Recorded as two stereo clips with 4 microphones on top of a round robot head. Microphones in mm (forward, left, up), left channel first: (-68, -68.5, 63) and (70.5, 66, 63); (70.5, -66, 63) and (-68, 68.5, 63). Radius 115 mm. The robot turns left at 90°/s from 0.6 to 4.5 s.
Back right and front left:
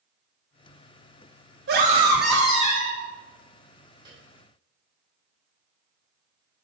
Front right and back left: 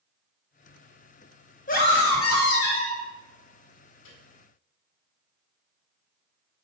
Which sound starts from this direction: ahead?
A scream, at 1.7 s.